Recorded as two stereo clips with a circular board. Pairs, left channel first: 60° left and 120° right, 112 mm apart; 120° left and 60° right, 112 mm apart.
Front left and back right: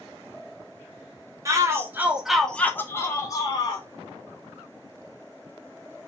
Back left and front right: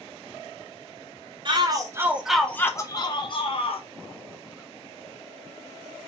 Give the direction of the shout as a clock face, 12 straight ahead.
2 o'clock.